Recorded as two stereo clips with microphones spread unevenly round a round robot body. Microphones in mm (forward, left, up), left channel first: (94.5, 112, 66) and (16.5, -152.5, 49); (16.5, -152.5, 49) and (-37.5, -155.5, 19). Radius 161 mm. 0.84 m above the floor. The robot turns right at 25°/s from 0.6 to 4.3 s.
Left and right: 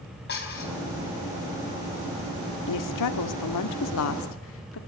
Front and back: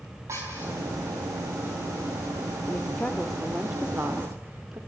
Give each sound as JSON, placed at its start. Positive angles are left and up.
{"t": 0.3, "sound": "dishes clattering", "azimuth_deg": 130, "distance_m": 4.5}
{"t": 2.7, "sound": "a woman speaking", "azimuth_deg": 80, "distance_m": 1.9}